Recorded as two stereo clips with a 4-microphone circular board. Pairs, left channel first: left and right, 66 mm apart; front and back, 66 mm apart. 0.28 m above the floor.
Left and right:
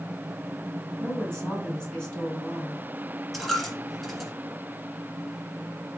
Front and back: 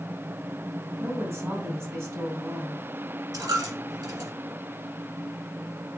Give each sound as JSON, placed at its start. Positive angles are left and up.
{"t": 1.0, "sound": "a woman speaking", "azimuth_deg": 160, "distance_m": 2.0}
{"t": 3.3, "sound": "a dropped coin", "azimuth_deg": 180, "distance_m": 1.6}